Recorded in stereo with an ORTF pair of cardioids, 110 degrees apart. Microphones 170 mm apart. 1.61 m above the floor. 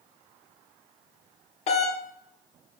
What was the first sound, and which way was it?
A doorbell, 35° left.